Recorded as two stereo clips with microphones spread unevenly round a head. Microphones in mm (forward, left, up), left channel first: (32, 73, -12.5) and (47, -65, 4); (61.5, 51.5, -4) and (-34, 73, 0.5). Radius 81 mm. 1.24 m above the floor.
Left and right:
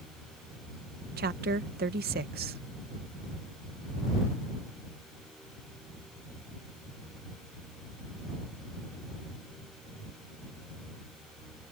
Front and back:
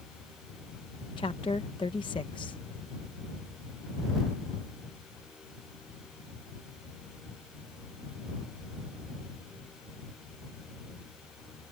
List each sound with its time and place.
1.2 s a woman speaking: 75° right